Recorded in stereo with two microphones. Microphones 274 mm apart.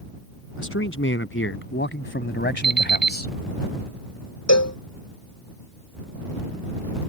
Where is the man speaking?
50° left (ahead or behind); by 3.3 s 30° left (ahead or behind).